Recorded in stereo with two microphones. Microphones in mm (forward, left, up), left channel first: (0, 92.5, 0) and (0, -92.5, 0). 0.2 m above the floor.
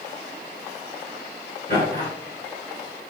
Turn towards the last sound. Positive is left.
turn(degrees=55)  # may be behind; listen again after turning